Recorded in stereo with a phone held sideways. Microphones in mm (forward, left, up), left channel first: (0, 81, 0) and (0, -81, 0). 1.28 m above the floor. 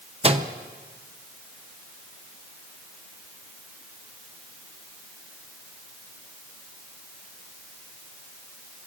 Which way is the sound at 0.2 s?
40° right (ahead or behind).